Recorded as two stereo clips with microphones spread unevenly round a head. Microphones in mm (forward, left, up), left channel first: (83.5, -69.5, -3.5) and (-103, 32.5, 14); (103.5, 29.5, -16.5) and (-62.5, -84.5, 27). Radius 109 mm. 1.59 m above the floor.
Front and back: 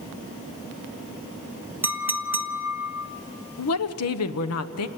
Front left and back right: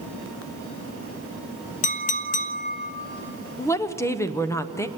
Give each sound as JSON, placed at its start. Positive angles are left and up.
{"t": 1.8, "sound": "a clink", "azimuth_deg": 85, "distance_m": 0.8}
{"t": 3.6, "sound": "a woman speaking", "azimuth_deg": -40, "distance_m": 1.1}